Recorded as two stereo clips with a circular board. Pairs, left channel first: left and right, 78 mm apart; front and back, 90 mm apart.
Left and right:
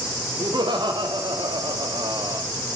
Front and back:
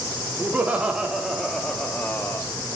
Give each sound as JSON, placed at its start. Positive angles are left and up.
{"t": 0.4, "sound": "laughter", "azimuth_deg": -110, "distance_m": 1.8}